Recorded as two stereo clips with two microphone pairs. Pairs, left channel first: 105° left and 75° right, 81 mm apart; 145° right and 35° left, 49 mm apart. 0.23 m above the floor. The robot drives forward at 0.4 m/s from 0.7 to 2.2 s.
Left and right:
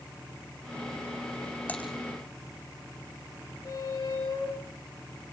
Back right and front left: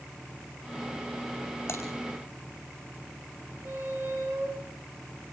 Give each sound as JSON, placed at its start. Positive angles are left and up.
{"t": 1.7, "sound": "typing on a keyboard", "azimuth_deg": 180, "distance_m": 8.5}
{"t": 3.6, "sound": "a squeak", "azimuth_deg": 75, "distance_m": 10.0}